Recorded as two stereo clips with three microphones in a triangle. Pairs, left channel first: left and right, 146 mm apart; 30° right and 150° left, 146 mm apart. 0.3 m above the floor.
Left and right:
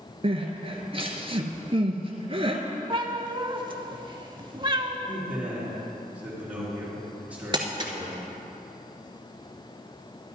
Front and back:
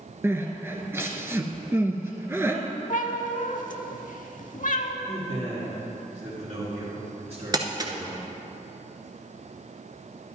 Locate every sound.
0.2 s crying: 135° right, 0.9 m
2.9 s a cat meowing: 35° right, 0.6 m
5.1 s a man speaking: 165° right, 3 m
7.5 s crumpling: 145° right, 0.9 m